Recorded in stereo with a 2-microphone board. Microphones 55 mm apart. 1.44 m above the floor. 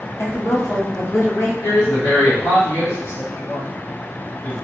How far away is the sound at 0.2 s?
About 1.1 m.